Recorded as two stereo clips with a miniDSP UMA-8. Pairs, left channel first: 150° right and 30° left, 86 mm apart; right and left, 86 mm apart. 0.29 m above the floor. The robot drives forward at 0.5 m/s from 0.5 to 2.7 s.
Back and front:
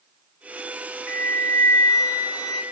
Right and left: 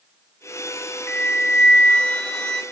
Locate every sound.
1.1 s a flute: 125° right, 0.6 m; by 2.6 s 170° right, 1.1 m